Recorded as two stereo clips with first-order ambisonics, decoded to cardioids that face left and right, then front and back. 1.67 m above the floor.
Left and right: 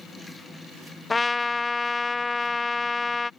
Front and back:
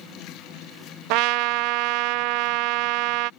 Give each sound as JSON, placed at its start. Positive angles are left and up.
{"t": 1.1, "sound": "a trumpet", "azimuth_deg": 170}